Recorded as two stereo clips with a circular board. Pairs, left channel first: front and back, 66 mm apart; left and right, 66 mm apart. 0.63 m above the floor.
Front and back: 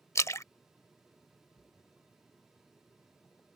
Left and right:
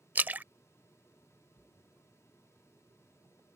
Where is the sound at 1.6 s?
55° right.